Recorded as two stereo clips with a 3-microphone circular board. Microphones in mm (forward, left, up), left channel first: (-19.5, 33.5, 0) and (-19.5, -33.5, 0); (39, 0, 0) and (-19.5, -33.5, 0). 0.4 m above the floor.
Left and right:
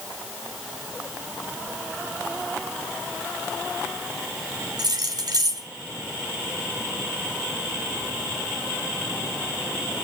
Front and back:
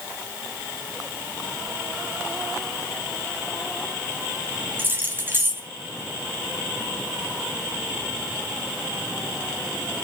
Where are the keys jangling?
90° right, 1.9 m.